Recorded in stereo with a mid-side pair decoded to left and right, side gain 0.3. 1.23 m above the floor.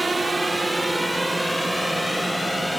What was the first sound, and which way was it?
A drone, 35° right.